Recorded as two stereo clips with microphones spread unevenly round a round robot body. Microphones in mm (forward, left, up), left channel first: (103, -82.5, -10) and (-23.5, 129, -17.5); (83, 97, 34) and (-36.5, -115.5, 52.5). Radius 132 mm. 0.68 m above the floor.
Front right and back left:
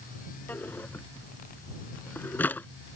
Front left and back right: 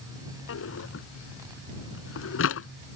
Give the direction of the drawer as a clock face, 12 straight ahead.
11 o'clock.